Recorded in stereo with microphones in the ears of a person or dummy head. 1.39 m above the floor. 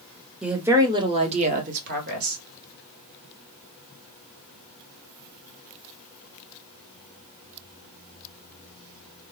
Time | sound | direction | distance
0.4 | a woman speaking | centre (ahead or behind) | 0.7 m